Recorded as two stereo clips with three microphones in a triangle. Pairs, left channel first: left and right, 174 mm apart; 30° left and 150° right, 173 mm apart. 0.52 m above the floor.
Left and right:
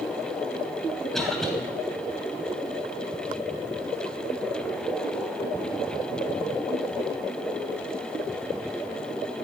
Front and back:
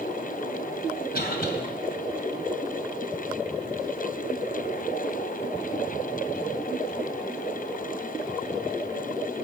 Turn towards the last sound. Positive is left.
turn(degrees=5)